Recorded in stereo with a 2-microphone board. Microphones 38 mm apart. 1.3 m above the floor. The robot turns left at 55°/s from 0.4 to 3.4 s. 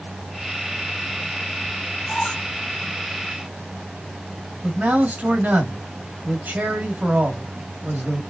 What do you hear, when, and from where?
2.1 s a squeak: 15° left (ahead or behind), 2.5 m; by 2.5 s 5° right (ahead or behind), 2.5 m
4.6 s a man speaking: 55° right (ahead or behind), 2.5 m